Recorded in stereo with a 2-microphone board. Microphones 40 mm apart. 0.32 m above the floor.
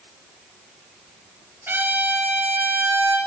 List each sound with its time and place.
1.7 s a trumpet: 65° right (ahead or behind), 5 m